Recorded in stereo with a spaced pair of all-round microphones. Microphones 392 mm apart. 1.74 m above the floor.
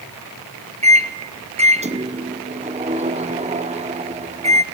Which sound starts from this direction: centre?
A microwave, at 0.8 s.